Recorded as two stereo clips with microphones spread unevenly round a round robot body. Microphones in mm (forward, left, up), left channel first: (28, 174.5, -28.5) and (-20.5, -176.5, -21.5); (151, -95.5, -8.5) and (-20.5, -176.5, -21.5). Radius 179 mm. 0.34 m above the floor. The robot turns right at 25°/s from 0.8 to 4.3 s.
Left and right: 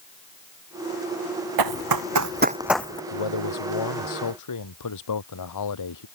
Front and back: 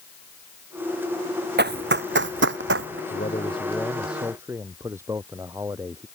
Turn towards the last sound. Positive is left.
turn(degrees=120)